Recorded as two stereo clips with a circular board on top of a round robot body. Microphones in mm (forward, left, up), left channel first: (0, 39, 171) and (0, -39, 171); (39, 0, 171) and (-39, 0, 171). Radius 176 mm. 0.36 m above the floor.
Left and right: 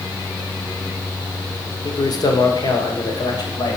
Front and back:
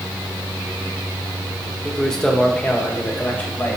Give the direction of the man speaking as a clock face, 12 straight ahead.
9 o'clock.